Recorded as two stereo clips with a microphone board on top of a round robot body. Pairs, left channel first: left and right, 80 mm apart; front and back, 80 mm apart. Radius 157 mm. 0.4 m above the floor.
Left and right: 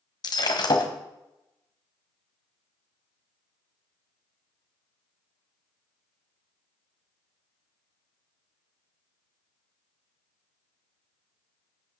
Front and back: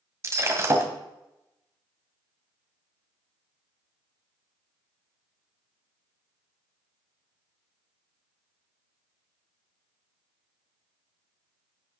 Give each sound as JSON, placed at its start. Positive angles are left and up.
{"t": 0.2, "sound": "breaking glass", "azimuth_deg": 125, "distance_m": 2.0}